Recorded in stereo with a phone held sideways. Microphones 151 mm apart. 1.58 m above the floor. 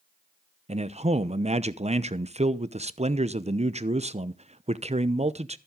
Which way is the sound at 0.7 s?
45° right (ahead or behind).